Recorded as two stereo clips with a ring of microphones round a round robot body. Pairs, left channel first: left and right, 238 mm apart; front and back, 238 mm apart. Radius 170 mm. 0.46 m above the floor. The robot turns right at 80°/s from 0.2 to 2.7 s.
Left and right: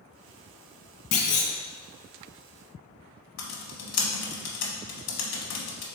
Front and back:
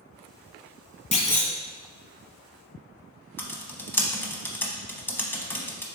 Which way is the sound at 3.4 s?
80° left.